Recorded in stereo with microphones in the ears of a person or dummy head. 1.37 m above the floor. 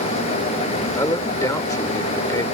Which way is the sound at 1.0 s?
10° left (ahead or behind).